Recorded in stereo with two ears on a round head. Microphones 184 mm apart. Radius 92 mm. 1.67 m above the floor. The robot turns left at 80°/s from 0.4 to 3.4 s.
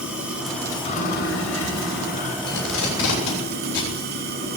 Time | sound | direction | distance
0.0 | running water | 175° right | 5 m
2.5 | tape being pulled | 50° left (ahead or behind) | 8.5 m